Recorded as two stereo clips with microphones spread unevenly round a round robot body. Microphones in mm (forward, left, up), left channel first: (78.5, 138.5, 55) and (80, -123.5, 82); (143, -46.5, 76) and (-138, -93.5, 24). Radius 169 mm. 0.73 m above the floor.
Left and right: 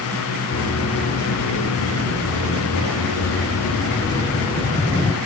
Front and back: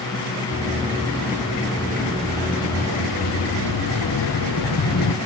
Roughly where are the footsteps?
Left.